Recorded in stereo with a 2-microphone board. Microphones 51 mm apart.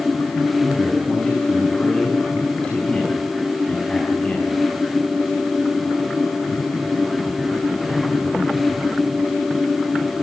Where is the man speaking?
25° left (ahead or behind), 6.5 m.